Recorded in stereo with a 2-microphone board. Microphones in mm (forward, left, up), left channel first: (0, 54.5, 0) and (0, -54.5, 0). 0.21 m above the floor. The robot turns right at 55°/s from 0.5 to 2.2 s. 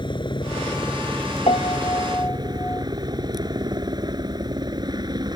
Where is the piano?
115° left; by 2.9 s 160° left.